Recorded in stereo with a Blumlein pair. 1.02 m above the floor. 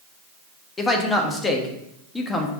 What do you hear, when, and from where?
0.8 s a man speaking: 10° left, 1.3 m